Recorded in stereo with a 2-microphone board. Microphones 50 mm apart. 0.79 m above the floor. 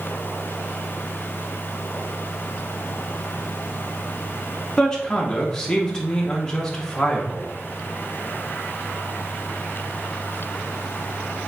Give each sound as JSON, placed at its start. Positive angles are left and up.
{"t": 4.8, "sound": "a man speaking", "side_deg": 15, "distance_m": 0.9}